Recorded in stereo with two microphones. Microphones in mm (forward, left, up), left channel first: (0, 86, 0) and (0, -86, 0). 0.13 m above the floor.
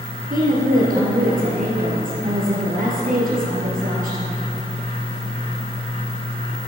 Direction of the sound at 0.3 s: 55° right (ahead or behind).